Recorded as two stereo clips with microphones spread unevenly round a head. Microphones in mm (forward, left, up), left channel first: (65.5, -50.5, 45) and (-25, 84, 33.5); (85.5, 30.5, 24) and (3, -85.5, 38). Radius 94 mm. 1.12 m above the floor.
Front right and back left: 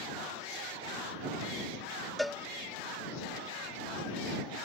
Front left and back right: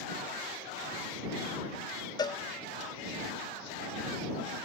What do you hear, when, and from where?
2.2 s a cowbell: 40° left